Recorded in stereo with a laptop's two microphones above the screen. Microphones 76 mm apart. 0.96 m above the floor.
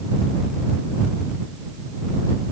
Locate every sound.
Only background noise.